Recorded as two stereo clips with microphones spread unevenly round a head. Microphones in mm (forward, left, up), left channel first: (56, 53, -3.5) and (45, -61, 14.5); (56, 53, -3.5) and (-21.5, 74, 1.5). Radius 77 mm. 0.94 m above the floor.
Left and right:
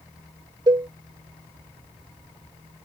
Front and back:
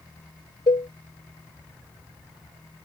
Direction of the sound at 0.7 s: 50° right.